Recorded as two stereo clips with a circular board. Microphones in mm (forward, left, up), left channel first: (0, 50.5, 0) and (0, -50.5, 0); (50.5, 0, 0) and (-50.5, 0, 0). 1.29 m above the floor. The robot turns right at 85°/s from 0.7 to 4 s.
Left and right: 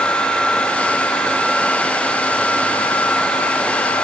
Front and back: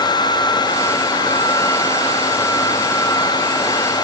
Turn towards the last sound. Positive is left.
No sound to turn to.